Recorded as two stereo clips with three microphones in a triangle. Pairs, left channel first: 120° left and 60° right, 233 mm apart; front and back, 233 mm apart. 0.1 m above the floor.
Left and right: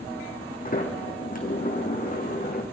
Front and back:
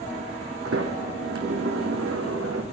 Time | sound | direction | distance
0.7 | a sliding door | 170° left | 1.6 m